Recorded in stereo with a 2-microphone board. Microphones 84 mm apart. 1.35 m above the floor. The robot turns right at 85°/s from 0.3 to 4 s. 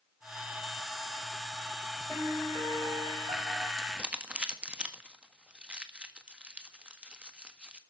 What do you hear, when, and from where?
2.1 s a piano: 175° left, 5 m; by 3.7 s 50° right, 5 m
3.8 s crumpling: 5° left (ahead or behind), 1.5 m; by 7.8 s 10° right (ahead or behind), 1.5 m